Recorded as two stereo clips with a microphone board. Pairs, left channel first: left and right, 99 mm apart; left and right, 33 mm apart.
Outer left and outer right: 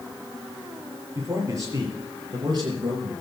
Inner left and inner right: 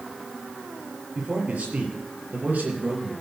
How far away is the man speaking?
About 5 m.